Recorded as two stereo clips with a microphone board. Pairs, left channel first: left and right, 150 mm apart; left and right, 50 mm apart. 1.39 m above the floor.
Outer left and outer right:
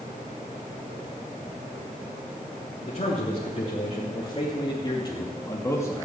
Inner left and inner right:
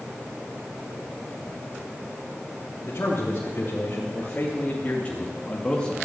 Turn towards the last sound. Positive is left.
turn(degrees=15)  # may be behind; listen again after turning